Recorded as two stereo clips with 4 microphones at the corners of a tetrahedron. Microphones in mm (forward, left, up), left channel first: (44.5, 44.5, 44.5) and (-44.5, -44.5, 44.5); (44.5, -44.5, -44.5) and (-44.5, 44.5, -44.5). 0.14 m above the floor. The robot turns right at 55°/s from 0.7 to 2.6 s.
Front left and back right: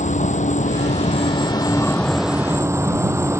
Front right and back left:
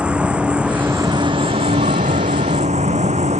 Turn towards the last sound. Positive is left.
turn(degrees=160)